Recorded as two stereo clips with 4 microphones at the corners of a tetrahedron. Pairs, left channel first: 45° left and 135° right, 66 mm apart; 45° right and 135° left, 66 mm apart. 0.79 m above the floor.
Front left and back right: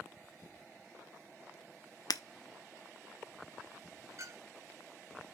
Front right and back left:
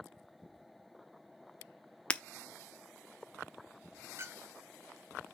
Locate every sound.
2.1 s breaking glass: 30° left, 0.6 m
4.2 s a clink: 175° right, 1.0 m